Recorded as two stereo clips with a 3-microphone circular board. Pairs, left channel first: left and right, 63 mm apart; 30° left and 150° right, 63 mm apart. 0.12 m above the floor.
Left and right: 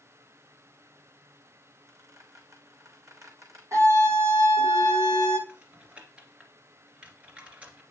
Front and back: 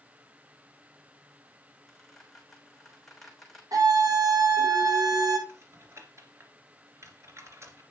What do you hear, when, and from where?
1.9 s a squeak: 60° right, 3 m
3.7 s a scream: 130° right, 4 m
5.5 s typing on a keyboard: 150° right, 2.5 m